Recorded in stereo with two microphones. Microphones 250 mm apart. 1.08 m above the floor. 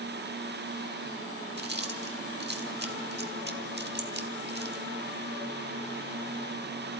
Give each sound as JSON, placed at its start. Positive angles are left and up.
{"t": 1.6, "sound": "chewing", "side_deg": -40, "distance_m": 1.3}